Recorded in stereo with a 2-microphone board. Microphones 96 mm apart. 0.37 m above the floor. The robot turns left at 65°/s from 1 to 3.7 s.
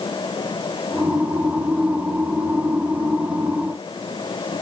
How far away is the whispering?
No whispering in this recording.